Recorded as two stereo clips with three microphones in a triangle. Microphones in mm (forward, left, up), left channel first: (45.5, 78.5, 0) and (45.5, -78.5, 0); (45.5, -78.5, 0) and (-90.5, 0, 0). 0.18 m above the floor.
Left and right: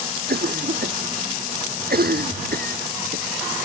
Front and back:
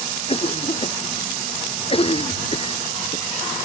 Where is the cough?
80° right.